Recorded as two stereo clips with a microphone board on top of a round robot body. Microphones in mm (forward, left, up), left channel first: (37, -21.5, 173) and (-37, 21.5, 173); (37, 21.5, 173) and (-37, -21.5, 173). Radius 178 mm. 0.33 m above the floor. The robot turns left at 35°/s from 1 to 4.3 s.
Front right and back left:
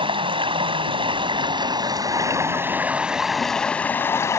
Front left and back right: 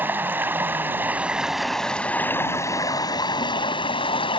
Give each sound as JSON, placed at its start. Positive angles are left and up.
{"t": 0.0, "sound": "running water", "azimuth_deg": 145}